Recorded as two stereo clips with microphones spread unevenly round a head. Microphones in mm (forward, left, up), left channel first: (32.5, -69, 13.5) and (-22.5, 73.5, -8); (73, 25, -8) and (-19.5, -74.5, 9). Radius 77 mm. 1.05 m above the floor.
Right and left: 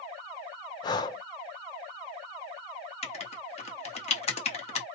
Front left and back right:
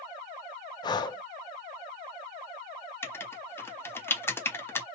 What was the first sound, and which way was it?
Breathing, 5° right.